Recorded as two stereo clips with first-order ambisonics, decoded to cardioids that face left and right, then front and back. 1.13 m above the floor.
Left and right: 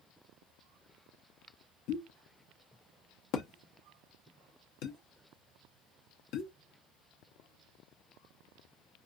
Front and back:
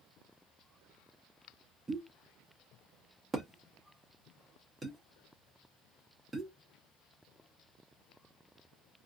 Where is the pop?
100° left, 0.8 m.